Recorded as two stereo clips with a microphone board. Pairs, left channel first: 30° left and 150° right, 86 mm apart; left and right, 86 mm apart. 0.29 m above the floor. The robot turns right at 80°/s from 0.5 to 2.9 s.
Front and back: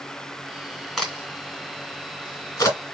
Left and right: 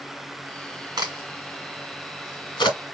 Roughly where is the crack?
Ahead right.